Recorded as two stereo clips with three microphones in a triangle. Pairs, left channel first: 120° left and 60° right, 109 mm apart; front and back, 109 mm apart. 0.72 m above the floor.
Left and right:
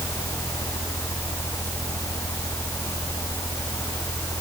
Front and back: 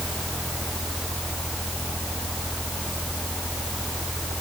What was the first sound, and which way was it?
Only background noise.